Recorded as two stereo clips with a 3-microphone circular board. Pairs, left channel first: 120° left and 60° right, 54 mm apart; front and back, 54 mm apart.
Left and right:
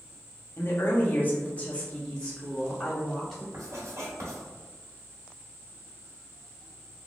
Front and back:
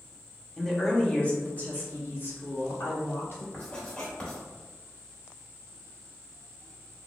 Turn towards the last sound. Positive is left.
turn(degrees=-70)